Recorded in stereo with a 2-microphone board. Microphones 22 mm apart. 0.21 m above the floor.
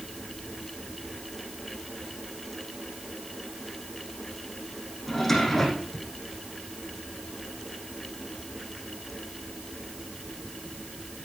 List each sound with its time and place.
5.1 s a drawer: 15° left (ahead or behind), 6 m